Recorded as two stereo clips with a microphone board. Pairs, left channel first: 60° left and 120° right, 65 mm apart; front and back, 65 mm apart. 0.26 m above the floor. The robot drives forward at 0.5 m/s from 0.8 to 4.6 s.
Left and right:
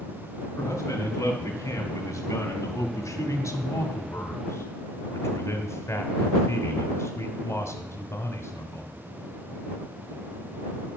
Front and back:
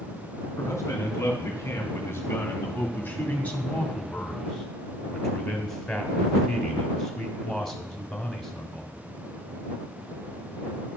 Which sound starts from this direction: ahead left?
A man speaking, at 0.6 s.